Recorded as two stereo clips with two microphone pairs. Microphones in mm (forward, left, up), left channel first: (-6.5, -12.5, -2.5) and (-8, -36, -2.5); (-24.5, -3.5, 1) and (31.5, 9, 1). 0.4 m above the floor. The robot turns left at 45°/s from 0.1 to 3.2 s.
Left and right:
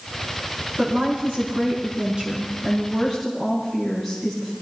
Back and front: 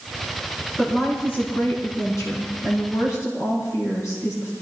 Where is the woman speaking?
85° right, 4 m; by 4.5 s 165° left, 4 m.